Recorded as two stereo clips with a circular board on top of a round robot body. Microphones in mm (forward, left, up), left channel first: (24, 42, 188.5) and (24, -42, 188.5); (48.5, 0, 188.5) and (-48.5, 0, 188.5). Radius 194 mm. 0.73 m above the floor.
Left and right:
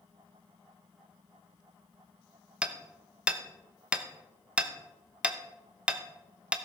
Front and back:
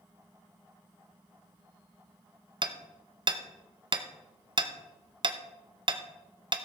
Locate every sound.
2.6 s hammering: 165° right, 1.0 m